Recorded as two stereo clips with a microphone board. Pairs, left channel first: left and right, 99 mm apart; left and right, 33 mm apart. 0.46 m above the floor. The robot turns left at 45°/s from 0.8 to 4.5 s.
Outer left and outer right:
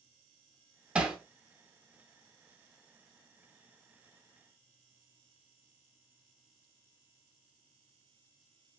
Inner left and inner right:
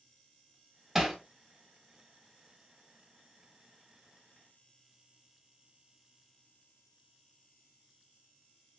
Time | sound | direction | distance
0.9 | hammering | 10° right (ahead or behind) | 0.7 m